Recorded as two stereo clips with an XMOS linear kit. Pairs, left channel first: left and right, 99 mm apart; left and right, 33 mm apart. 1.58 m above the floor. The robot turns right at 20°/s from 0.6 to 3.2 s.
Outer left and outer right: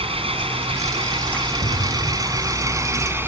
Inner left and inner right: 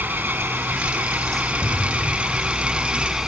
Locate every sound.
0.0 s an engine running: 75° right; by 3.3 s 20° right
1.6 s an explosion: 70° left (ahead or behind); by 2.9 s 85° left